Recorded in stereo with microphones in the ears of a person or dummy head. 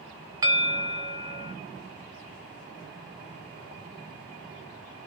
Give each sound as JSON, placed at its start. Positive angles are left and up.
{"t": 0.4, "sound": "a bell", "side_deg": -25, "distance_m": 0.6}